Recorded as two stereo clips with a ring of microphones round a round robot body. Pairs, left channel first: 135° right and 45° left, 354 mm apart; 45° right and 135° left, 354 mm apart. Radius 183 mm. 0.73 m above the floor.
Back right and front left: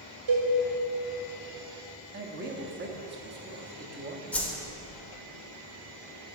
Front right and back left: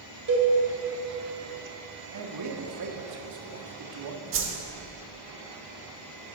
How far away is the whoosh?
About 1.3 m.